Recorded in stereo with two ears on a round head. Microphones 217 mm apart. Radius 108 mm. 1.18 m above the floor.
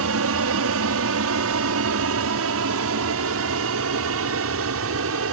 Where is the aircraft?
60° right (ahead or behind).